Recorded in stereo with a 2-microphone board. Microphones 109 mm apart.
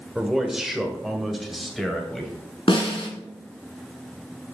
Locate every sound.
0.1 s a man speaking: 5° right (ahead or behind), 1.4 m; by 2.3 s centre (ahead or behind), 2.5 m
2.7 s a snare drum: 55° left (ahead or behind), 2.5 m